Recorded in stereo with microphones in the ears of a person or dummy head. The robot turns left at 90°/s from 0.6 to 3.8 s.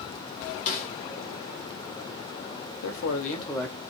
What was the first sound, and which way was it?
A snare drum, 50° left (ahead or behind).